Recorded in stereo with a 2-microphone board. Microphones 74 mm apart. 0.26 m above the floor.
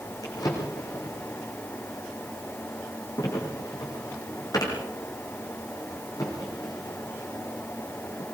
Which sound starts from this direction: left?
A drawer, at 0.2 s.